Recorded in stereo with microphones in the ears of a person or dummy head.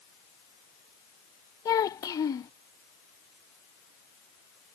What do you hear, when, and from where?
1.6 s a child speaking: 20° left (ahead or behind)